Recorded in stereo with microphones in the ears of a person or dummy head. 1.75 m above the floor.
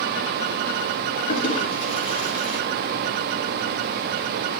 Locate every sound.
1.3 s a toilet flushing: 40° left (ahead or behind), 3 m